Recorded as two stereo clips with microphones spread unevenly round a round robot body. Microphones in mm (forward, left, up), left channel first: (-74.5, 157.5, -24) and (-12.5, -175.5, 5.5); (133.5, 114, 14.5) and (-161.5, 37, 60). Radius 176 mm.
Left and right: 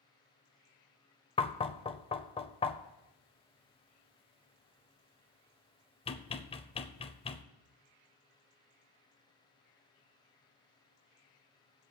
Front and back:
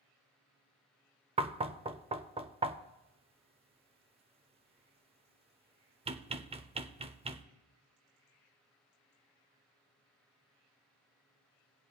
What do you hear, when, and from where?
1.4 s knocking: 130° left, 0.5 m